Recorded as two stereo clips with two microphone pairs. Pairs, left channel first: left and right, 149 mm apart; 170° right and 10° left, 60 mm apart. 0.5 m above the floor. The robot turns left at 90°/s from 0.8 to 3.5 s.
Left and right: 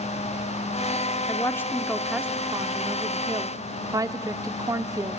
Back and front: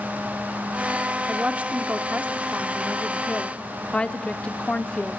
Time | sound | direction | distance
1.3 | a woman speaking | 70° left | 0.7 m